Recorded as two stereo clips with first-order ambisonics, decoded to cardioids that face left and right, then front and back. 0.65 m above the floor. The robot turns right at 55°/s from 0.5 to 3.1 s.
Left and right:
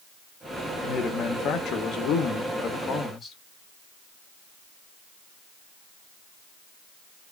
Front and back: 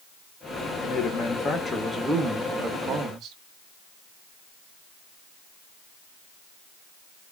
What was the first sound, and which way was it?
A man speaking, 30° left.